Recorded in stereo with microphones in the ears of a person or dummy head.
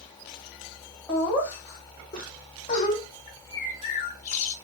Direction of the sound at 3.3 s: 45° left (ahead or behind).